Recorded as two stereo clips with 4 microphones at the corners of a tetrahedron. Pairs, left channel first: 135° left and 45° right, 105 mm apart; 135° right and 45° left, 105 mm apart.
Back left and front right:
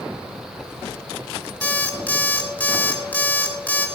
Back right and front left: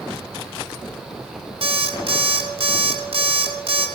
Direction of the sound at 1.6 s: 60° left.